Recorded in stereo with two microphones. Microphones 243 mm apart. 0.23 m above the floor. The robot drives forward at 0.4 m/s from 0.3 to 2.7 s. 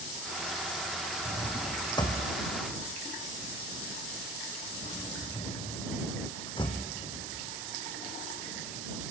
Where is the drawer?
15° left (ahead or behind), 3 m; by 6.8 s 20° left (ahead or behind), 2.5 m.